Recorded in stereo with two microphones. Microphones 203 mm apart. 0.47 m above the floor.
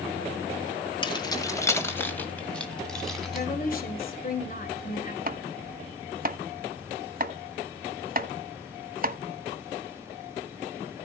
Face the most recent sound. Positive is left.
turn(degrees=-45)  # may be behind; listen again after turning